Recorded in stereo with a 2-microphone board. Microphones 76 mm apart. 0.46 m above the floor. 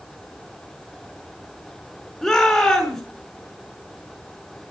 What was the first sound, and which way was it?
A shout, 15° left (ahead or behind).